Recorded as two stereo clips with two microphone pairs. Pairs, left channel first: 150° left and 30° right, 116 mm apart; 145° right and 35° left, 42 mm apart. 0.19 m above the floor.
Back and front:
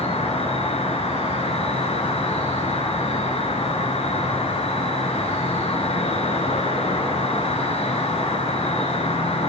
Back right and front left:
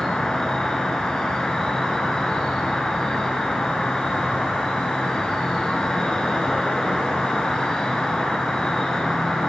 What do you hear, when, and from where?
0.0 s an insect: 140° left, 1.4 m